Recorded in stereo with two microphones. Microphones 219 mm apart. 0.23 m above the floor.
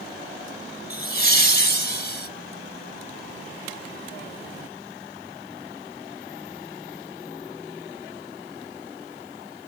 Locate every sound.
0.9 s laughter: 45° left (ahead or behind), 1.5 m